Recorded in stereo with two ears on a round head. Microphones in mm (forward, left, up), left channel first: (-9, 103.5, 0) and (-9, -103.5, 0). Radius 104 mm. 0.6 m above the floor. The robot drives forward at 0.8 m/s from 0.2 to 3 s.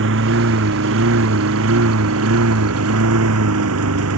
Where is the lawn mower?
55° right (ahead or behind); by 4.2 s 65° right (ahead or behind).